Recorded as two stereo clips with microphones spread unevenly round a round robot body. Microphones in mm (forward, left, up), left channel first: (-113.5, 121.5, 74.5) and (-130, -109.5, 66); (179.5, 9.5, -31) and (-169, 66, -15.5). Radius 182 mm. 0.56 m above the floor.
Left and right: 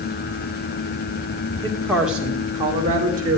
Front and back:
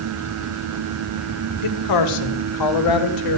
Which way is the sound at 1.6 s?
10° left.